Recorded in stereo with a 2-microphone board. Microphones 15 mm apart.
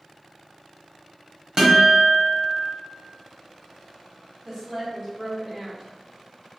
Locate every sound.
1.6 s a guitar: 35° right (ahead or behind), 1.3 m
4.5 s a woman speaking: 15° right (ahead or behind), 1.7 m